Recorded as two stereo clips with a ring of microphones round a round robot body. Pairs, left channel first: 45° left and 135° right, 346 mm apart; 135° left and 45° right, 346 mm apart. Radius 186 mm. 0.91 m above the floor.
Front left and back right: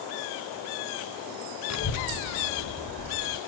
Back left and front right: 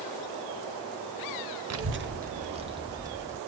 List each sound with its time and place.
1.7 s a child speaking: straight ahead, 0.7 m; by 3.4 s 35° left, 1.9 m